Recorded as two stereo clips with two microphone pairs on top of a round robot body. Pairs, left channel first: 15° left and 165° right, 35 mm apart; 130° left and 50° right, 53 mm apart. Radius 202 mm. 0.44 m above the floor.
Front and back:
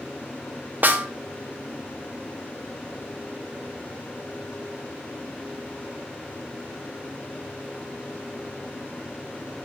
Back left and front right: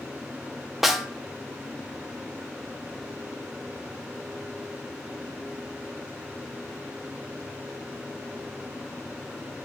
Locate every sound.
0.8 s a snare drum: 135° right, 1.3 m